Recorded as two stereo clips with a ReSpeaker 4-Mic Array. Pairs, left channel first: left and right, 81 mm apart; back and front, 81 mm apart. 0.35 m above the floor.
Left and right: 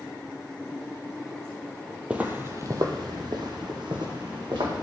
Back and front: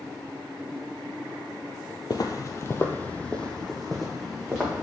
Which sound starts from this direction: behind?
Footsteps, at 2.1 s.